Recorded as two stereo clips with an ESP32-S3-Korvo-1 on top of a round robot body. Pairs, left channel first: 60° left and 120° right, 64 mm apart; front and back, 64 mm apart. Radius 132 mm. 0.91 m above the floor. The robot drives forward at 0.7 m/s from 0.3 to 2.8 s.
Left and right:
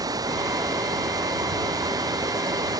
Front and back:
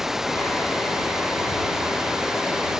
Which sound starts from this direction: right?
Running water, at 0.0 s.